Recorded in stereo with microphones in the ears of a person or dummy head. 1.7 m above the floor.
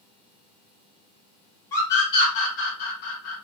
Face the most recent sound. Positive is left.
turn(degrees=60)  # may be behind; listen again after turning